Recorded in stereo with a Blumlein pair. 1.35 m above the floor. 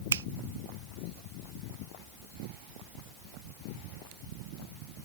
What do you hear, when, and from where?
0.1 s a finger snap: 65° right